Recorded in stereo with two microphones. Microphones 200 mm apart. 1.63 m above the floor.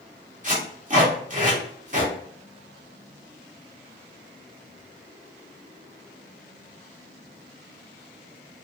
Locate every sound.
0.4 s tape being pulled: 40° right (ahead or behind), 1.3 m